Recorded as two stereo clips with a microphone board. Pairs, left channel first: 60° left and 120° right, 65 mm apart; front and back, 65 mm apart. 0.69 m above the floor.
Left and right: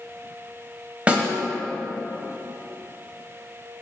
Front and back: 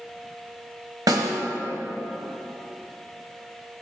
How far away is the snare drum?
About 1.3 m.